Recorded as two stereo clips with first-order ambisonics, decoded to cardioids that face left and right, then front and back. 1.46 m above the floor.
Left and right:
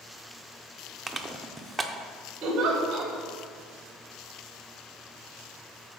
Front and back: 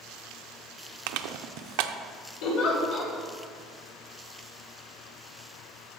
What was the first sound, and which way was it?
Crushing, 170° right.